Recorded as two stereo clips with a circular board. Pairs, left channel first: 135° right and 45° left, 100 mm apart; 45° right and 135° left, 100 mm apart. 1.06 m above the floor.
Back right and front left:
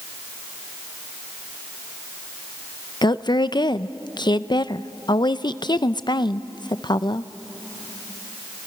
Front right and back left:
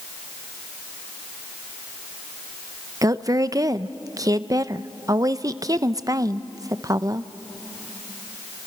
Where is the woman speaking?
175° right, 0.6 m.